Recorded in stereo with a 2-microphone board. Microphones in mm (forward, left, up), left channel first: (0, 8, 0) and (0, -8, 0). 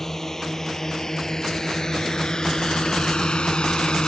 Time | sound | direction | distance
0.0 | a drone | 25° left (ahead or behind) | ?